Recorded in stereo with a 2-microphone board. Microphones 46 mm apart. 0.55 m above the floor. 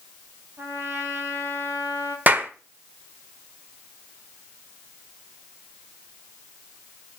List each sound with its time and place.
0.6 s a trumpet: 75° right (ahead or behind), 4 m
2.3 s a clap: 40° right (ahead or behind), 1.3 m